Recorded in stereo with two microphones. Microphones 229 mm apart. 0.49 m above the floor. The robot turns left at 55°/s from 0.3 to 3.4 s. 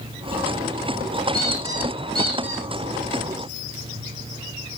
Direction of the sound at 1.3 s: 5° left.